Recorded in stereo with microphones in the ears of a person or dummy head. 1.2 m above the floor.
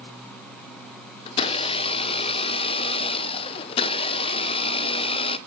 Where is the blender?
25° left (ahead or behind), 0.6 m.